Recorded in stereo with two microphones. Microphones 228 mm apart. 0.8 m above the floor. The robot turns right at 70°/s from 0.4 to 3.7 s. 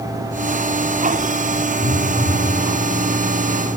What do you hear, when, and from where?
1.8 s a phone buzzing: 35° left, 3.5 m; by 2.5 s 85° left, 3.5 m